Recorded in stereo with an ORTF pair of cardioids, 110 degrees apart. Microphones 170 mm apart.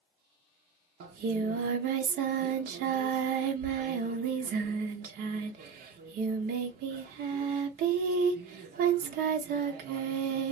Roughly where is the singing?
Right.